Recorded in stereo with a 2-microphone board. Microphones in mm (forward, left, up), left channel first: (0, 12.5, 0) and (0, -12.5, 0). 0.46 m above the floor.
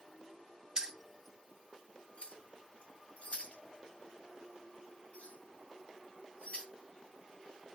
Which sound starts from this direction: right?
Keys jangling, at 0.8 s.